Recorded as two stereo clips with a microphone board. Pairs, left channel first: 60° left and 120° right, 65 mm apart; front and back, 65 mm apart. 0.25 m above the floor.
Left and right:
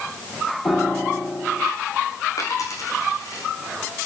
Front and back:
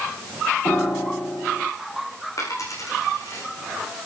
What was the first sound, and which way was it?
A piano, 20° left.